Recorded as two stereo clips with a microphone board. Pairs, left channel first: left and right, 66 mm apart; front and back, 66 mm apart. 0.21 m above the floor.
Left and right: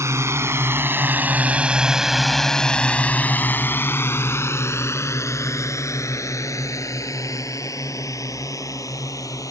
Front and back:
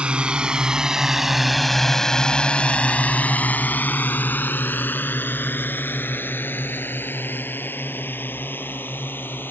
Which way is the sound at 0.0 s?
110° right.